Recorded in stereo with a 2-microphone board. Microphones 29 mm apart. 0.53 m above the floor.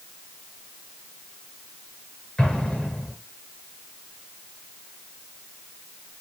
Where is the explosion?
30° left (ahead or behind), 7 m.